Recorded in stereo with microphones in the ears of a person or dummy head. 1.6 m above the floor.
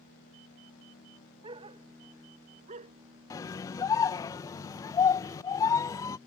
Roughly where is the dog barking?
Right.